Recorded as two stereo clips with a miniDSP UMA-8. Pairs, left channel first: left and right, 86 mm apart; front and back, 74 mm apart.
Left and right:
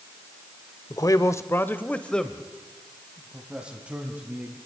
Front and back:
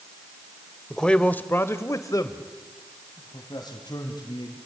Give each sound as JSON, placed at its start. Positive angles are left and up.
{"t": 0.9, "sound": "a man speaking", "azimuth_deg": 85, "distance_m": 1.1}